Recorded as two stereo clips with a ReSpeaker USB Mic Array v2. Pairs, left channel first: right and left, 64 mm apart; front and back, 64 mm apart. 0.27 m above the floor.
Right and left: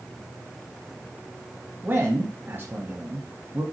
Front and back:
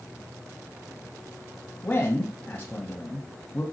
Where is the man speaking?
50° left, 1.5 m.